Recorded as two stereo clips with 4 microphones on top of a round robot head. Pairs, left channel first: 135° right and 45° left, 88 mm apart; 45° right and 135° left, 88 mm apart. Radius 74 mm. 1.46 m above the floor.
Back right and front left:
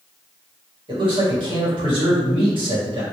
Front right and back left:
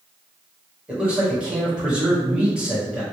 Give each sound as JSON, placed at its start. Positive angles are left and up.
{"t": 0.9, "sound": "a man speaking", "azimuth_deg": 60, "distance_m": 1.8}